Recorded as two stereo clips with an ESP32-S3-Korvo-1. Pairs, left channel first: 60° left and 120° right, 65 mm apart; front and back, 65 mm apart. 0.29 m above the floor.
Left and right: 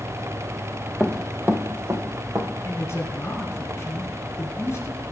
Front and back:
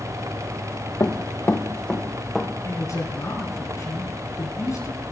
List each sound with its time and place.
1.0 s running footsteps: 20° right, 1.2 m; by 2.5 s 85° right, 2 m
2.6 s a man speaking: 20° left, 3 m